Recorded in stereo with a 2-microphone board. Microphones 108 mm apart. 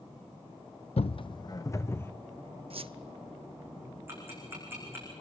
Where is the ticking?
20° right (ahead or behind), 7 m.